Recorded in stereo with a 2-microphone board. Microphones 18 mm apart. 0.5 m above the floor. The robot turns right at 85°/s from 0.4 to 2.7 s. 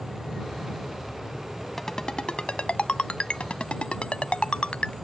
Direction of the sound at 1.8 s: 20° left (ahead or behind).